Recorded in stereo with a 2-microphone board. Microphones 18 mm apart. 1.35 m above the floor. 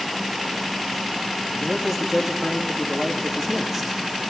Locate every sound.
1.6 s a man speaking: 10° right (ahead or behind), 3 m